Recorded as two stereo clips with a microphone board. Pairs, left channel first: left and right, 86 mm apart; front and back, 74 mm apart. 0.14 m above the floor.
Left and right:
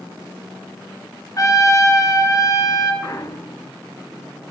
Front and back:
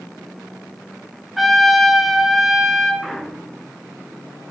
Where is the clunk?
90° left, 0.8 m.